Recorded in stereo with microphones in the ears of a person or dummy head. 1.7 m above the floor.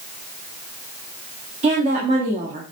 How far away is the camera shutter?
I don't hear a camera shutter.